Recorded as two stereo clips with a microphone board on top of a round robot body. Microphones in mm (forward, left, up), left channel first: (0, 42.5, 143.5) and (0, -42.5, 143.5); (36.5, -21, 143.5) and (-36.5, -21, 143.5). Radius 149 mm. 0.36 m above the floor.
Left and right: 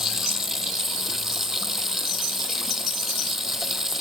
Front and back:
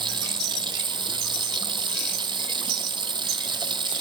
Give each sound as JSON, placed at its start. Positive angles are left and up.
{"t": 0.0, "sound": "running water", "azimuth_deg": -175}